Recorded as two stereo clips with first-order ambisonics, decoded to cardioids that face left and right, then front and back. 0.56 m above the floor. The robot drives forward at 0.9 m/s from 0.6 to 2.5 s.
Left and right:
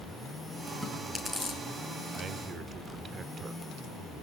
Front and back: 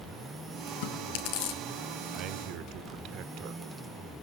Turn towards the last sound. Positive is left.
turn(degrees=-155)